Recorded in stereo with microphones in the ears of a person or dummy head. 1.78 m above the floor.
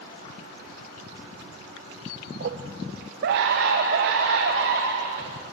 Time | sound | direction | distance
2.4 | a scream | 50° right (ahead or behind) | 1.3 m